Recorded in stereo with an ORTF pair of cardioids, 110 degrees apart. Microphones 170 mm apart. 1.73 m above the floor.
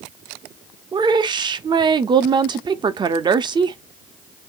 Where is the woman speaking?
25° right, 0.6 m.